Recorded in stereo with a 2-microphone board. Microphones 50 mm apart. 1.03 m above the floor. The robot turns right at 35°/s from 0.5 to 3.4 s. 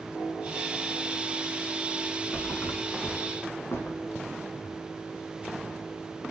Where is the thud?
55° left (ahead or behind), 1.8 m; by 4.2 s 60° left (ahead or behind), 1.8 m.